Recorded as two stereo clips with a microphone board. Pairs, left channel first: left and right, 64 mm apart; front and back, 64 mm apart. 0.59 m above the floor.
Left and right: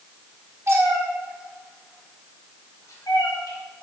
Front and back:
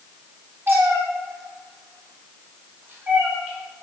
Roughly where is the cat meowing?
Behind right.